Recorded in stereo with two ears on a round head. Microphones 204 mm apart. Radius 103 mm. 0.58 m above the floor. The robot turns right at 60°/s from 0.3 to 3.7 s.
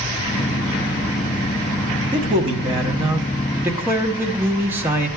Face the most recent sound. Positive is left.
turn(degrees=-10)  # may be behind; listen again after turning